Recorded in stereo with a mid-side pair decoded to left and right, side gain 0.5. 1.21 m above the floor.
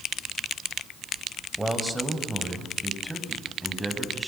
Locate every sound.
1.6 s a man speaking: 10° right, 5.5 m; by 4.3 s 5° left, 7.5 m